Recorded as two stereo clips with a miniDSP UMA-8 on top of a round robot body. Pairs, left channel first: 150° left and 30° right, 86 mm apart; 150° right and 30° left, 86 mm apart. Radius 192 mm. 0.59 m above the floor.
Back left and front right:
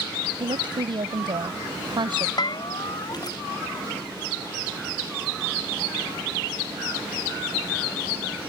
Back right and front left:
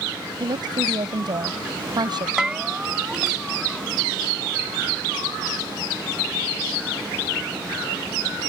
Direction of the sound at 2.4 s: 110° left.